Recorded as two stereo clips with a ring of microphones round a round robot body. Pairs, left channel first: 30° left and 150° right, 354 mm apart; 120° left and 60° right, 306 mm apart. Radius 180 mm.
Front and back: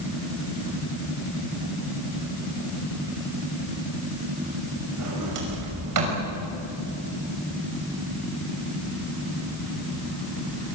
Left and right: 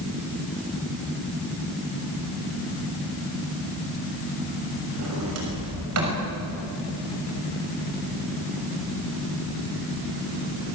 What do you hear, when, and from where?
5.0 s a sliding door: 110° right, 6 m